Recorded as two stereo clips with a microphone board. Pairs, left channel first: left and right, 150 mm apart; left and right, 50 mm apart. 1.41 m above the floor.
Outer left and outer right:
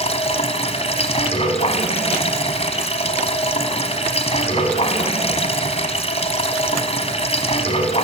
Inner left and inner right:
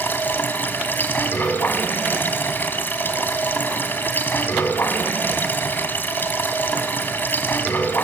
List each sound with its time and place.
0.0 s running water: 45° left (ahead or behind), 2 m